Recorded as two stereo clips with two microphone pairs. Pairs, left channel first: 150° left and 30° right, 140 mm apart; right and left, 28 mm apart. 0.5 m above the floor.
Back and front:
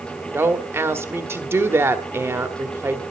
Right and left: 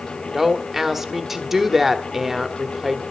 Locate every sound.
0.3 s a woman speaking: 25° left, 1.2 m